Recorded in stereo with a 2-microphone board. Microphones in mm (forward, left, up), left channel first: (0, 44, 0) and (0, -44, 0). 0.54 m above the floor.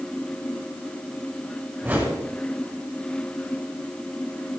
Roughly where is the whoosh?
Right.